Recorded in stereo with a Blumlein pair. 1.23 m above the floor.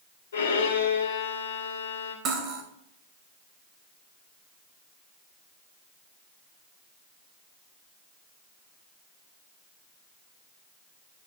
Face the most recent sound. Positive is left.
turn(degrees=-25)